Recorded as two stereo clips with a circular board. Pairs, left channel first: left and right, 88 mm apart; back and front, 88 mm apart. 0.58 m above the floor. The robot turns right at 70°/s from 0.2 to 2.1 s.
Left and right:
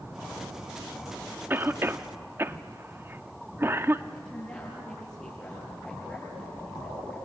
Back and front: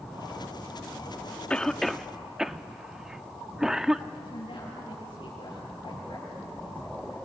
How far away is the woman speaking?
About 7.5 m.